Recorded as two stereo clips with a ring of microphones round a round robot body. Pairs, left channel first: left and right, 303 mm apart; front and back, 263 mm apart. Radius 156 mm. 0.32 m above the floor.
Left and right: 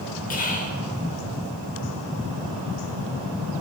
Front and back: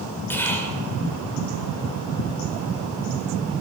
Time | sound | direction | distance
0.3 | whispering | 75° left | 1.0 m